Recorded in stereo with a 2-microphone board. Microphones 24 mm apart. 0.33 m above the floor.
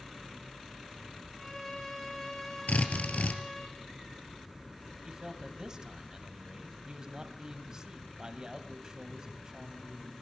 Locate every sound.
1.4 s a violin: 10° left (ahead or behind), 4 m
2.7 s a drill: 80° left, 3 m
5.0 s a man speaking: 30° right (ahead or behind), 2 m